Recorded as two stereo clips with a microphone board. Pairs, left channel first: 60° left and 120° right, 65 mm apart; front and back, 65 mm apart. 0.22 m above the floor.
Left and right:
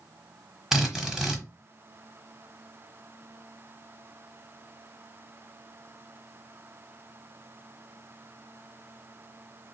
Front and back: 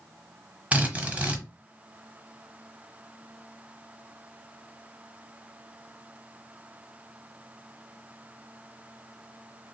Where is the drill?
175° left, 1.1 m.